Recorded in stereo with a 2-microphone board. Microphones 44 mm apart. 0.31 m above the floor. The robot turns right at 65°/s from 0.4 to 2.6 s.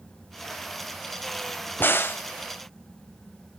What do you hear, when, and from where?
1.8 s a crack: 50° left (ahead or behind), 0.6 m; by 2.2 s 60° left (ahead or behind), 0.6 m